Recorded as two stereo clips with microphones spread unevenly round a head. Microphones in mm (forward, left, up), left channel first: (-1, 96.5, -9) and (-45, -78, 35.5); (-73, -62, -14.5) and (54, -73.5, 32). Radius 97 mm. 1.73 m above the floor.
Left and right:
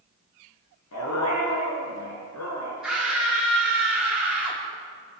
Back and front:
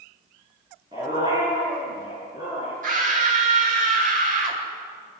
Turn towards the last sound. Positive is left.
turn(degrees=-20)